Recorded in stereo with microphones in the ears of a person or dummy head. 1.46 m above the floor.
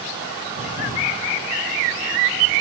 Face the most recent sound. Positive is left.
turn(degrees=60)  # may be behind; listen again after turning